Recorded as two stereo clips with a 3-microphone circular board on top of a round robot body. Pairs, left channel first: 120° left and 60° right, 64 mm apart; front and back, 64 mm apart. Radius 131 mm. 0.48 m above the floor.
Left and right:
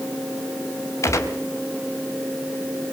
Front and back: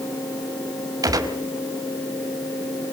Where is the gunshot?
160° left, 3 m.